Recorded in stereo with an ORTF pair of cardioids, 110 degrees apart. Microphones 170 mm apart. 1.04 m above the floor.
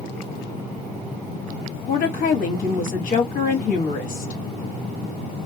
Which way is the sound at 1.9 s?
55° left.